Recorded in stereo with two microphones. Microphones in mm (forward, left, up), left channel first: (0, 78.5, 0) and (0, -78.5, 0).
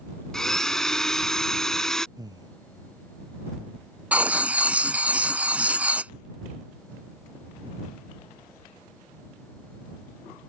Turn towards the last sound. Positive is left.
turn(degrees=-10)  # may be behind; listen again after turning